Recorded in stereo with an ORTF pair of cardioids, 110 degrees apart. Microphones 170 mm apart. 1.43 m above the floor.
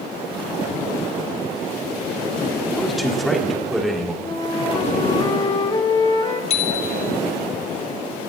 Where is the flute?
30° left, 2.5 m.